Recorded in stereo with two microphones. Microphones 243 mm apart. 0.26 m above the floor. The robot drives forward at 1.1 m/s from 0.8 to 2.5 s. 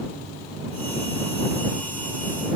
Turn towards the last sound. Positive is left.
No sound to turn to.